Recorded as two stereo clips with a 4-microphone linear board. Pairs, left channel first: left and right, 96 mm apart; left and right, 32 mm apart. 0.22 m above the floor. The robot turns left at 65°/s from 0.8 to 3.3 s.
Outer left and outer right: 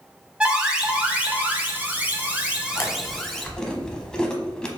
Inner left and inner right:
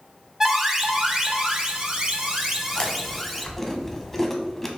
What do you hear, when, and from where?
0.4 s an alarm: 10° right (ahead or behind), 0.8 m; by 3.5 s 5° left (ahead or behind), 0.8 m
2.8 s chewing: 30° left (ahead or behind), 0.7 m; by 4.7 s 10° left (ahead or behind), 0.7 m